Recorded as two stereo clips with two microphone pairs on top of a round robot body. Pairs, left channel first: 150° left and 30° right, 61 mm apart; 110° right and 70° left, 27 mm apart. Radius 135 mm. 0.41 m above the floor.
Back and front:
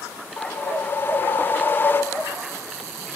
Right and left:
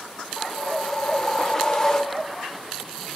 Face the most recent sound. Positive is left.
turn(degrees=-165)